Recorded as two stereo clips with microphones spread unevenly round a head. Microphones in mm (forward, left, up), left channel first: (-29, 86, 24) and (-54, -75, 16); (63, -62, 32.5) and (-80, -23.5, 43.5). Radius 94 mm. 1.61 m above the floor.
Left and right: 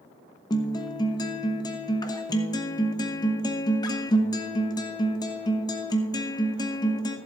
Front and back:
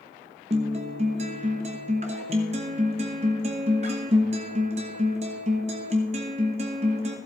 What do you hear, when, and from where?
0.5 s a guitar: 130° left, 1.0 m